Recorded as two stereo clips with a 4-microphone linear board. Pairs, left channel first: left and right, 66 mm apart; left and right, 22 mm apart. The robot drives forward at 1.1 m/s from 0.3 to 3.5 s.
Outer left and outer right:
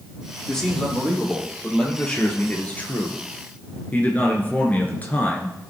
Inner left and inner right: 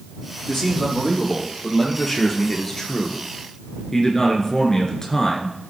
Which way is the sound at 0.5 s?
10° left (ahead or behind).